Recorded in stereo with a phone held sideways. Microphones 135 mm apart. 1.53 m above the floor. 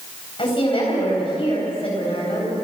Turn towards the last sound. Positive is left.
turn(degrees=40)  # may be behind; listen again after turning